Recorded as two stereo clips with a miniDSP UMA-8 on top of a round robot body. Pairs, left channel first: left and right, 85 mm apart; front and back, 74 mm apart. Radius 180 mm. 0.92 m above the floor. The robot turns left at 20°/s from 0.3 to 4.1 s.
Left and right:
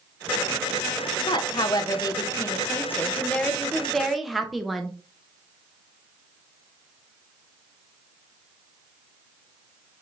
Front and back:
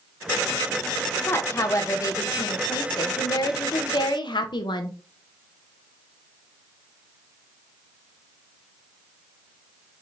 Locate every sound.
1.3 s a woman speaking: 55° left, 0.8 m; by 5.0 s straight ahead, 0.8 m